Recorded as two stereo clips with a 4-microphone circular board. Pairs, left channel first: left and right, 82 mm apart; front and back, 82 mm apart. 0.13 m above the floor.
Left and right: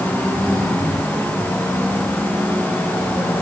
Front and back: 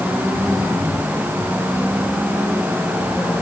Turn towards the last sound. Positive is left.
No sound to turn to.